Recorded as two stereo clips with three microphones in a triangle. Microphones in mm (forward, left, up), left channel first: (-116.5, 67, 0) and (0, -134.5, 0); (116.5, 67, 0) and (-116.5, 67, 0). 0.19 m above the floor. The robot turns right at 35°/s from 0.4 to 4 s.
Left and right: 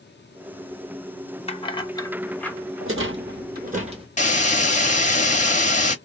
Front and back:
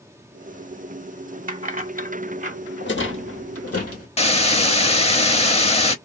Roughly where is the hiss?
Ahead left.